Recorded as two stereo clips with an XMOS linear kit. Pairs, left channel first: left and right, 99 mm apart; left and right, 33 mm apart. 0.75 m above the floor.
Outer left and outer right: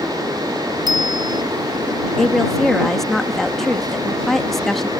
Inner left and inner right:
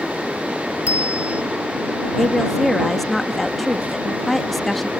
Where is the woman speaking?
5° left (ahead or behind).